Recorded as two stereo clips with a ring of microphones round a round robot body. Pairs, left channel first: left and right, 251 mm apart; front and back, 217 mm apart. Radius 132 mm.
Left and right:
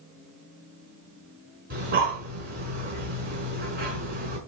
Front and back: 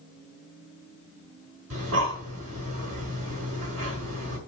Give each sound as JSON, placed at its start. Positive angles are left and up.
{"t": 1.7, "sound": "breathing", "azimuth_deg": -145, "distance_m": 5.5}